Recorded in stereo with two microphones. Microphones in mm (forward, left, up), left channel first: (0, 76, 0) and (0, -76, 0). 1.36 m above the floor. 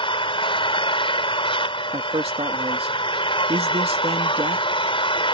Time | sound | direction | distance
0.0 | an engine running | 35° left (ahead or behind) | ?
1.9 | a man speaking | 40° right (ahead or behind) | ?